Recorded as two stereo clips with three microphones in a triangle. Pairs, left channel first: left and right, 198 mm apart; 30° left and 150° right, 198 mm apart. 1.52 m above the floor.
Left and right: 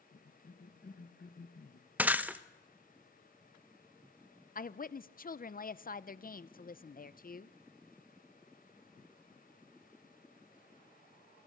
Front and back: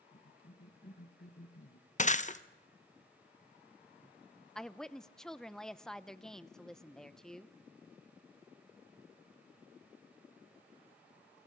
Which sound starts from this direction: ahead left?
A cough, at 0.1 s.